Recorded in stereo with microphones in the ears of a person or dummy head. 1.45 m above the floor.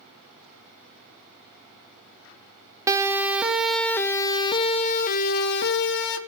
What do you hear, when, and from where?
2.9 s a siren: 20° right (ahead or behind), 2.5 m; by 6.2 s 70° left (ahead or behind), 2.5 m